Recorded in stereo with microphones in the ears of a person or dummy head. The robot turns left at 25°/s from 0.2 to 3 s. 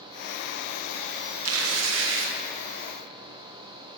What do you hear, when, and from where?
1.4 s tearing paper: 85° right, 1.1 m; by 2.4 s 65° right (ahead or behind), 1.1 m